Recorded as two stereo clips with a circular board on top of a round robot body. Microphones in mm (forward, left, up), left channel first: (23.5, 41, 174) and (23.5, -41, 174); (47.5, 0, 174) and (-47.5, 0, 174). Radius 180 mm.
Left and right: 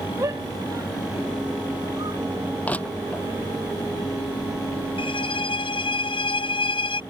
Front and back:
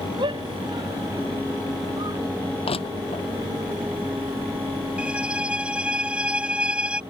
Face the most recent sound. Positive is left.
turn(degrees=100)